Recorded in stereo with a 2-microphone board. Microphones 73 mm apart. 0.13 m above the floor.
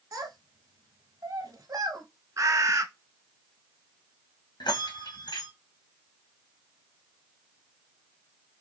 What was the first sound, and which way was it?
A child speaking, 45° right (ahead or behind).